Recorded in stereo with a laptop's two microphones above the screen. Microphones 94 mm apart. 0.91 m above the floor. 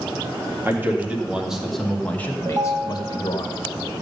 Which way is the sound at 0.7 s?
25° right (ahead or behind).